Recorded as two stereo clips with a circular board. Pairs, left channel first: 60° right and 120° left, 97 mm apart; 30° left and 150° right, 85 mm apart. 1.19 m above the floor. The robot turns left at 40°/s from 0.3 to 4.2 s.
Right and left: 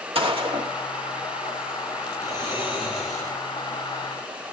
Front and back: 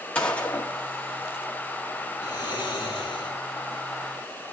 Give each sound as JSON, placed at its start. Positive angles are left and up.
{"t": 0.1, "sound": "a gunshot", "azimuth_deg": 105, "distance_m": 2.0}
{"t": 2.2, "sound": "snoring", "azimuth_deg": 65, "distance_m": 8.5}